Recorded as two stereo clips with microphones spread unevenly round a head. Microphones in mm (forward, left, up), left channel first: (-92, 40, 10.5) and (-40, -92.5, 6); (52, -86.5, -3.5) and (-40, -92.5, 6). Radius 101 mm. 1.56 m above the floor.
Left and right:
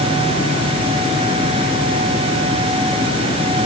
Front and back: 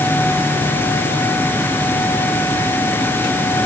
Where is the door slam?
No door slam in this recording.